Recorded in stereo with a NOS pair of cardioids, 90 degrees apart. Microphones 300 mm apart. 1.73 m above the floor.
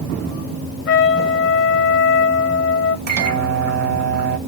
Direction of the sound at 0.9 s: 45° left.